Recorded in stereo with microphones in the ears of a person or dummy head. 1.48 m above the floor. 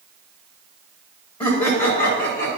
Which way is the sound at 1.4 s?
25° left (ahead or behind).